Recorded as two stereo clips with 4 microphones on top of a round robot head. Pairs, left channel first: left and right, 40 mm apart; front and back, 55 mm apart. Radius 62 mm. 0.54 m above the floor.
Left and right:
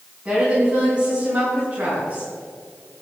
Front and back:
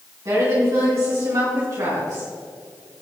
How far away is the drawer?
No drawer in this recording.